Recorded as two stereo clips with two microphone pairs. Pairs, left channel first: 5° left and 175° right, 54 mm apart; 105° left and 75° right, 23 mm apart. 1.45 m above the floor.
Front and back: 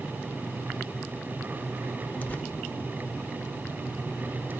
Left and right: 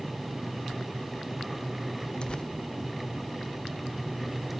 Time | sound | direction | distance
2.2 | tearing paper | 65° left | 0.7 m